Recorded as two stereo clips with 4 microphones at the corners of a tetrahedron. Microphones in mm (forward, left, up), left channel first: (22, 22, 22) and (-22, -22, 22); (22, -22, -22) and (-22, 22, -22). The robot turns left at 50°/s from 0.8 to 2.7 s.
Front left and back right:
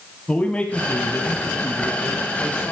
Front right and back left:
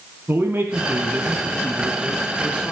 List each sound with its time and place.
0.3 s a man speaking: 105° left, 2.0 m; by 2.7 s 10° left, 2.0 m